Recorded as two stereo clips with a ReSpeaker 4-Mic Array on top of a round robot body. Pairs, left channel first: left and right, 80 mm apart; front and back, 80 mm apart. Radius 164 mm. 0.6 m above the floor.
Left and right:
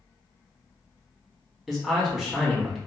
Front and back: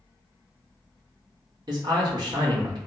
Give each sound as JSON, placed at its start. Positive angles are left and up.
{"t": 1.7, "sound": "a man speaking", "azimuth_deg": 180, "distance_m": 1.8}